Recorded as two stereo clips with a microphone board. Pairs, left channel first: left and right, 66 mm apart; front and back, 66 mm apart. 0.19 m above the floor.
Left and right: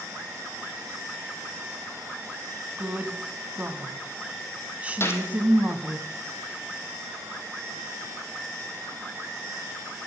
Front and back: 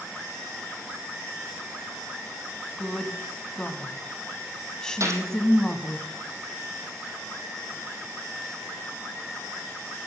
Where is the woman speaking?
65° right, 1.1 m.